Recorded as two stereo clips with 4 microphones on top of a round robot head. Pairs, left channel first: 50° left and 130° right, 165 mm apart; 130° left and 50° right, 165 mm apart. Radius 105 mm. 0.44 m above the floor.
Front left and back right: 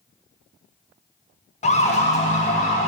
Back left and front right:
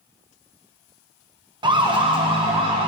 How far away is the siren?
About 2 m.